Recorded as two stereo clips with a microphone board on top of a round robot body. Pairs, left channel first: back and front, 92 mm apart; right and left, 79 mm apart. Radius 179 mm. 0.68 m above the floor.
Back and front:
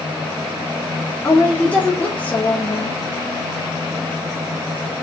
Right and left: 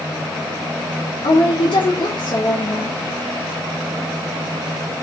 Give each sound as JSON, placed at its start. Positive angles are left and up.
{"t": 1.2, "sound": "a woman speaking", "azimuth_deg": -105, "distance_m": 2.0}